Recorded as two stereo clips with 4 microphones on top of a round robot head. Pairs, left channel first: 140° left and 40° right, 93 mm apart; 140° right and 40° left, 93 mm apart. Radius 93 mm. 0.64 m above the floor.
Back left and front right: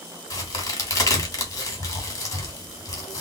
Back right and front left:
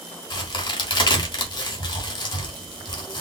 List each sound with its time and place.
0.3 s a crack: 170° right, 1.6 m